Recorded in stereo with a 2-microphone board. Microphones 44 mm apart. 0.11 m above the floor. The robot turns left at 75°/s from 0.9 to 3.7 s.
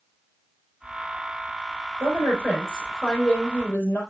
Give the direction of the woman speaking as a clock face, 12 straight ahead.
4 o'clock.